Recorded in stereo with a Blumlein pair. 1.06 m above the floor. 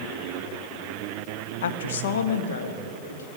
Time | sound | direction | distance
1.6 | a woman speaking | 60° left | 0.6 m